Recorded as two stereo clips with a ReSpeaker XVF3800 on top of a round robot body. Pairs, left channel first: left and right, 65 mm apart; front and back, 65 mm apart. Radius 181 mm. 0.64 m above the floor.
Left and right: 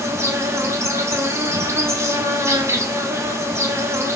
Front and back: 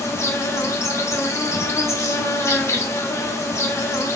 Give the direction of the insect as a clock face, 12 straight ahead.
1 o'clock.